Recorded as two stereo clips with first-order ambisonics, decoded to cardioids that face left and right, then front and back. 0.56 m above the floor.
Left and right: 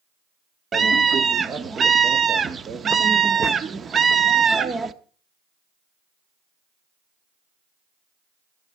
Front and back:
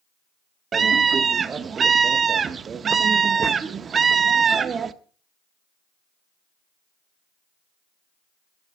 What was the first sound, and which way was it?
A scream, 135° right.